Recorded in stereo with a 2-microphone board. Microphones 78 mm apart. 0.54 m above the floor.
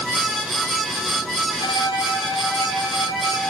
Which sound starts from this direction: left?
A violin, at 1.6 s.